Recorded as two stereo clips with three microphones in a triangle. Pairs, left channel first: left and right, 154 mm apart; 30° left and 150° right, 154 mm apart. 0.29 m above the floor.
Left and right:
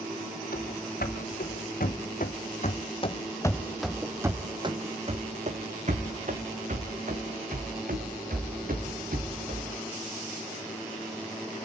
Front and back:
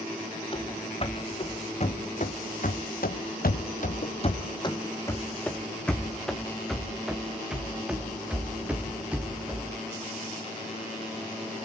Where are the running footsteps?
80° left, 2 m; by 9.7 s 70° right, 4 m.